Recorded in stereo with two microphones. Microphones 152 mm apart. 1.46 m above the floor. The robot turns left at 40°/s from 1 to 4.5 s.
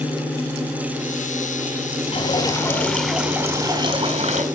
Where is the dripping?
40° left, 3.5 m; by 4.5 s 50° right, 3.5 m.